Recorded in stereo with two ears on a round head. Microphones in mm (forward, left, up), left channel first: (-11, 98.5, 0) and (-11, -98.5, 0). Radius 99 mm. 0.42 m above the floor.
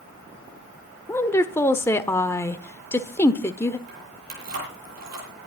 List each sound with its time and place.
1.1 s a woman speaking: 10° left (ahead or behind), 1.0 m
3.9 s keys jangling: 45° right (ahead or behind), 9.5 m